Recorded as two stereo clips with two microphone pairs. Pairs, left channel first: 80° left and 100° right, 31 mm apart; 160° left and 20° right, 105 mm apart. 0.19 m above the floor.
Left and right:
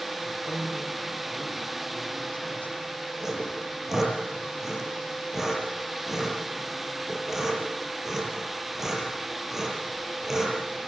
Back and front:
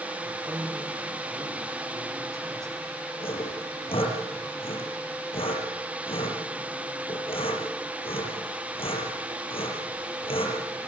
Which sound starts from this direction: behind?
Sawing, at 3.2 s.